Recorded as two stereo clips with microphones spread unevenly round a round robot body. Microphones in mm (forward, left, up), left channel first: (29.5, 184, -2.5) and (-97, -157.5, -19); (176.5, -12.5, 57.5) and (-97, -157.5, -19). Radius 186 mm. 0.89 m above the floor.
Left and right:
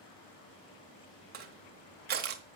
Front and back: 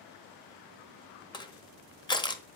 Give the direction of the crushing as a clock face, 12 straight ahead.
1 o'clock.